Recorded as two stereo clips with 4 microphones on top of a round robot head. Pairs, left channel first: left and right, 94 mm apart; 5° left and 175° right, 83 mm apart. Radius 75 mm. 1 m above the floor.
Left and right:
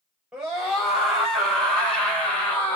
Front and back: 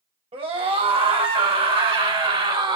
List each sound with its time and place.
0.3 s a scream: 175° right, 5 m; by 2.8 s 165° left, 4.5 m